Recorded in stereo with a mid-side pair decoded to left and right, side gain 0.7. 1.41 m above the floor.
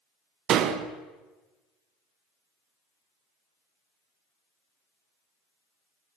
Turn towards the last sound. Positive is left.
turn(degrees=-50)